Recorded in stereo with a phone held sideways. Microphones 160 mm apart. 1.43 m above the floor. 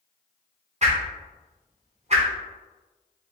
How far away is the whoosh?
About 1.3 m.